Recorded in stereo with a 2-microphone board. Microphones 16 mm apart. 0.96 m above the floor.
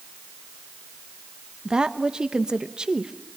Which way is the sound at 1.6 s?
45° right (ahead or behind).